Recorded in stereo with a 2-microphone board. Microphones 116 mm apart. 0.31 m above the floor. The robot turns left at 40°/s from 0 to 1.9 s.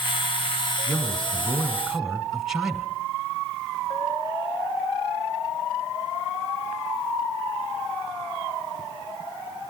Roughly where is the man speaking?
Ahead left.